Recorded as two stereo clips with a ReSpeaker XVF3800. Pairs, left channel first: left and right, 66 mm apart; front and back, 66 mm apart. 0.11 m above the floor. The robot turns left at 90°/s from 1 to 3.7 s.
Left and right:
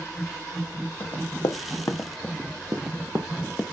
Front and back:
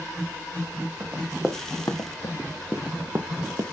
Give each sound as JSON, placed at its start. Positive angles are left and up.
{"t": 1.0, "sound": "running footsteps", "azimuth_deg": 145, "distance_m": 1.7}